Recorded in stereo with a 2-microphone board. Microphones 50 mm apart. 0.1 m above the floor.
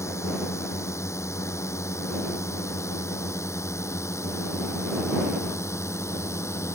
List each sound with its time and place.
0.0 s a drone: 70° left (ahead or behind); by 6.8 s 65° left (ahead or behind)